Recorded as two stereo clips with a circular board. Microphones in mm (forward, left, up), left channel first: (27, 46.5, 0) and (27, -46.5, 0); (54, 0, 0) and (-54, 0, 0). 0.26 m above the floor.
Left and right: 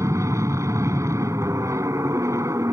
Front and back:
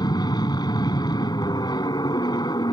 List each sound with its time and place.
0.0 s an aircraft: 40° right